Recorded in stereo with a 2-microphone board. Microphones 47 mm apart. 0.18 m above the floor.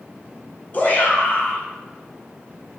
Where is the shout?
40° left (ahead or behind), 1.9 m.